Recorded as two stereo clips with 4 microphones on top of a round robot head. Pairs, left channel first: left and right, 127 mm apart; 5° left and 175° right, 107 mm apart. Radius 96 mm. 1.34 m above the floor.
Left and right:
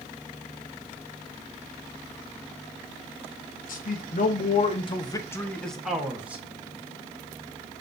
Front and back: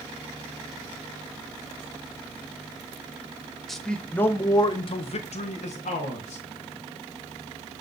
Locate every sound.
3.7 s a man speaking: 90° left, 1.1 m; by 6.4 s 10° right, 1.4 m